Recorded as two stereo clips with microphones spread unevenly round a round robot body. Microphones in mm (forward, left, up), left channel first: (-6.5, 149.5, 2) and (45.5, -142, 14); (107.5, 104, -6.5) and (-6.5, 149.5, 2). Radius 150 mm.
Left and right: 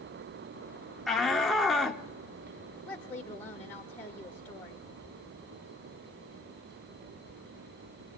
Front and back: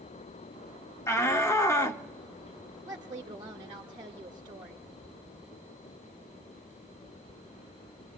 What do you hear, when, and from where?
1.1 s a shout: 15° left, 0.7 m
2.9 s a woman speaking: 175° left, 0.8 m